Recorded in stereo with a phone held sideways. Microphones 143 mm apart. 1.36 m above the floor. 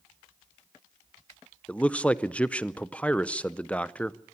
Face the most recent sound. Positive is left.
turn(degrees=10)  # may be behind; listen again after turning